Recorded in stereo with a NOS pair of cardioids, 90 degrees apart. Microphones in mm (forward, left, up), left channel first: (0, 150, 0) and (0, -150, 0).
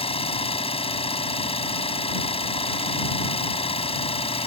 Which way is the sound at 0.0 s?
20° left.